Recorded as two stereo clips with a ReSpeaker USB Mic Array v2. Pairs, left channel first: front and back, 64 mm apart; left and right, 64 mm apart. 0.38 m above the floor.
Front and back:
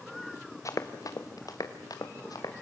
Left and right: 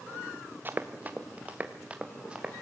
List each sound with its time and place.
0.7 s running footsteps: 35° right, 1.7 m; by 2.6 s 15° right, 4 m